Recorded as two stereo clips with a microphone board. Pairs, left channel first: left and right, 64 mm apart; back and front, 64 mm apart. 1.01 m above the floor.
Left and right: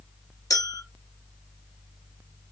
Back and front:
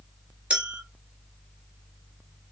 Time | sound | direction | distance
0.5 | a clink | 65° left | 1.7 m